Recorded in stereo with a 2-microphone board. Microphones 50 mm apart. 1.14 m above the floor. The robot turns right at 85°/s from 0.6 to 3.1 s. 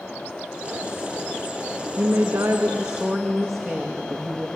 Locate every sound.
2.0 s a woman speaking: 100° right, 1.4 m; by 4.5 s 5° right, 1.4 m